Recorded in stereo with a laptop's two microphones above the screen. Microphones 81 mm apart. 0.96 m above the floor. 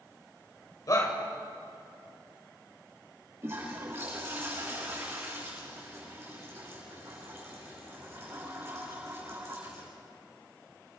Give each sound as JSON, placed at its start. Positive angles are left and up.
{"t": 0.9, "sound": "a shout", "side_deg": 45, "distance_m": 3.5}
{"t": 3.4, "sound": "a toilet flushing", "side_deg": -35, "distance_m": 8.0}